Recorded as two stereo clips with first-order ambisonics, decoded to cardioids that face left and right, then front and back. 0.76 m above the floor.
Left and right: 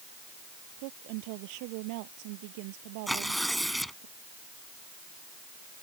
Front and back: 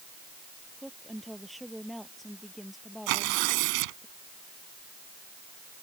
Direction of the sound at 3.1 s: Straight behind.